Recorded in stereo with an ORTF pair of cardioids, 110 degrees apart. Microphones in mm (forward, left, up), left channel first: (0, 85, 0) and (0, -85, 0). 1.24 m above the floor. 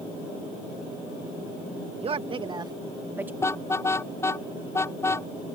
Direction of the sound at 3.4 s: 15° left.